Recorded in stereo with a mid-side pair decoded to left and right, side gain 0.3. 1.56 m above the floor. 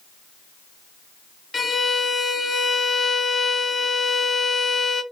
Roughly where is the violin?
Ahead left.